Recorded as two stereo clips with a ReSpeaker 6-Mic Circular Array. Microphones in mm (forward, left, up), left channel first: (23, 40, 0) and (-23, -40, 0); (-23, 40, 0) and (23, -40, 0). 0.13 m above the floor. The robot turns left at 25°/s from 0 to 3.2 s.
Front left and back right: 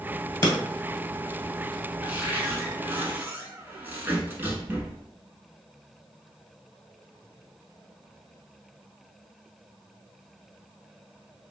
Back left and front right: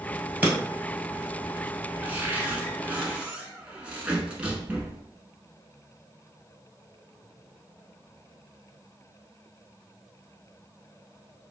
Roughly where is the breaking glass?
Ahead.